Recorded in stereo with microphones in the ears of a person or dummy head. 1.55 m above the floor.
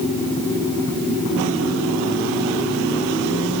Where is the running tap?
I don't hear a running tap.